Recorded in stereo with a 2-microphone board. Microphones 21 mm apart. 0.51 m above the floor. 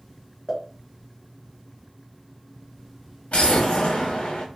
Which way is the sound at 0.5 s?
35° left (ahead or behind).